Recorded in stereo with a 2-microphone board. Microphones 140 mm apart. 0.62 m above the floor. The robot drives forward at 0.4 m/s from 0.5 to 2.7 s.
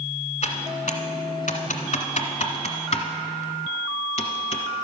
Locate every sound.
0.4 s typing on a keyboard: 55° left (ahead or behind), 1.0 m; by 4.6 s 50° left (ahead or behind), 1.0 m